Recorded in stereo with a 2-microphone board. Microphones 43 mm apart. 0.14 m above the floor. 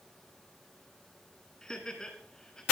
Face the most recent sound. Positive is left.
turn(degrees=15)  # may be behind; listen again after turning